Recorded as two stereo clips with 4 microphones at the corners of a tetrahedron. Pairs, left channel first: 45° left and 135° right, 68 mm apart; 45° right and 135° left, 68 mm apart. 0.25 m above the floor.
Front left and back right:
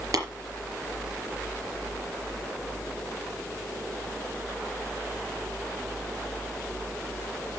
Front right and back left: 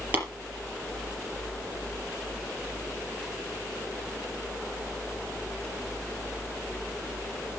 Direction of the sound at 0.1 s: 160° right.